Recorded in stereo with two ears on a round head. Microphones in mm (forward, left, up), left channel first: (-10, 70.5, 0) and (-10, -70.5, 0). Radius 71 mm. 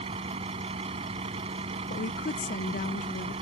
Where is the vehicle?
40° right (ahead or behind).